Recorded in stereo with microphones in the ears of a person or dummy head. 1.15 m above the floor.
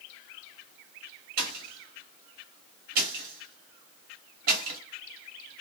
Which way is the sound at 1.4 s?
45° right (ahead or behind).